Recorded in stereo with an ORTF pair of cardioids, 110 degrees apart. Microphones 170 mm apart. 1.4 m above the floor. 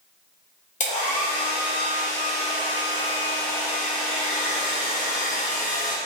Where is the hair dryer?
45° left, 0.7 m.